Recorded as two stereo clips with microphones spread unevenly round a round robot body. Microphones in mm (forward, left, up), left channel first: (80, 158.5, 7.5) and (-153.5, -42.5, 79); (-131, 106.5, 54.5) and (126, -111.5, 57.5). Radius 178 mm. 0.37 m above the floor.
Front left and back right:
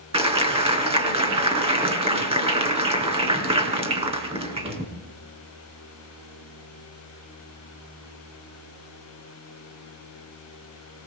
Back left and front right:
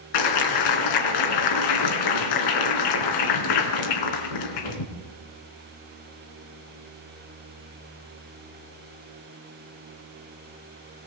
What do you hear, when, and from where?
0.1 s a clap: 145° left, 4 m